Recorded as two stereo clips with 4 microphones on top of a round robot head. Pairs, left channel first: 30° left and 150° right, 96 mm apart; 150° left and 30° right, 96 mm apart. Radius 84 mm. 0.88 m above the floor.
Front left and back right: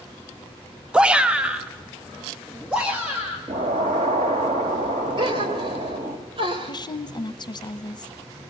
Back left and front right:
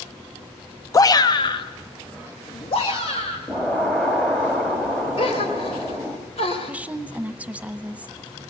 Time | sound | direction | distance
0.9 | a shout | 140° left | 0.6 m
3.5 | an explosion | 125° right | 2.5 m
5.2 | a gasp | 175° left | 2.5 m
6.6 | a woman speaking | 40° left | 0.9 m